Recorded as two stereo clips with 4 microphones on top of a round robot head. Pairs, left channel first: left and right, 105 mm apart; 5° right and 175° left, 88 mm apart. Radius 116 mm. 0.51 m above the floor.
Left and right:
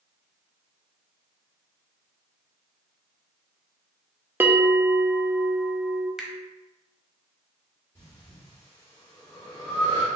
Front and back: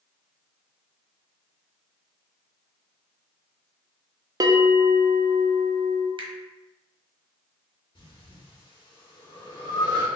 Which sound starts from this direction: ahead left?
Breathing, at 8.0 s.